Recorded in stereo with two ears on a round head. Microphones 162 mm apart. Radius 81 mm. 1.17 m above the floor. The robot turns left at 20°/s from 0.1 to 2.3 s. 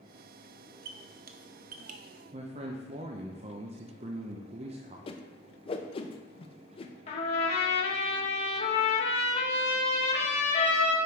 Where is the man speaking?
35° right (ahead or behind), 0.5 m.